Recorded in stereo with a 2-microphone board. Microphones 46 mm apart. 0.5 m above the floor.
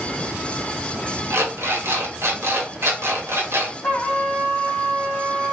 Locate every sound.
1.3 s an alarm clock: 60° right (ahead or behind), 1.0 m
3.8 s a trumpet: 25° left (ahead or behind), 1.0 m